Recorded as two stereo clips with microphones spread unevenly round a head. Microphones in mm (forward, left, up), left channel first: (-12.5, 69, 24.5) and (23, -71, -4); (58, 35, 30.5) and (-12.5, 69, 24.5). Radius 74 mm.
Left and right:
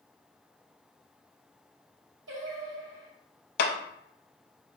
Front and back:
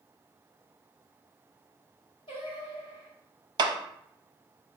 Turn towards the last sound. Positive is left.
turn(degrees=125)